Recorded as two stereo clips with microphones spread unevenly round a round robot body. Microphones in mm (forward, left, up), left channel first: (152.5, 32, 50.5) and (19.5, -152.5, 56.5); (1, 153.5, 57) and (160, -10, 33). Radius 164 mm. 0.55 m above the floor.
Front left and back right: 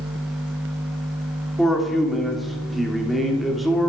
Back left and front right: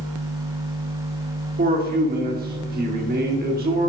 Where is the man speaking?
35° right, 1.6 m.